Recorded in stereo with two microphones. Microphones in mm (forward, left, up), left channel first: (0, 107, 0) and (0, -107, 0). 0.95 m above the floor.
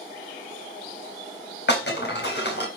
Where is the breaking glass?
55° left (ahead or behind), 4 m.